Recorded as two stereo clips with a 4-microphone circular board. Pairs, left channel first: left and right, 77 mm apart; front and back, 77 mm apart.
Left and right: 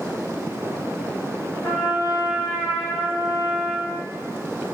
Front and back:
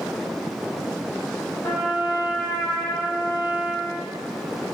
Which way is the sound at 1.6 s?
45° left.